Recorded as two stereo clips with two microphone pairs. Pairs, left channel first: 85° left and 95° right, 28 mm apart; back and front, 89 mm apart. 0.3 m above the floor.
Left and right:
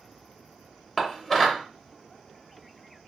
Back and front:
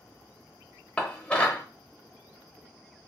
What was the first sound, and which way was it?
Dishes clattering, 140° left.